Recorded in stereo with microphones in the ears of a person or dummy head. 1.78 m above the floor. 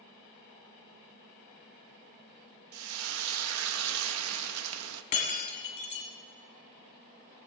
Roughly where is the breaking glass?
Left.